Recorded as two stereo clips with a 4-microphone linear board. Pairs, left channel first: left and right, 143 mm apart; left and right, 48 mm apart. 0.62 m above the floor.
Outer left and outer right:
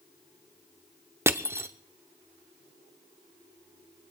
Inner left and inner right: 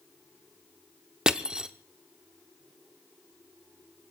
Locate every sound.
1.3 s crushing: 15° right (ahead or behind), 0.8 m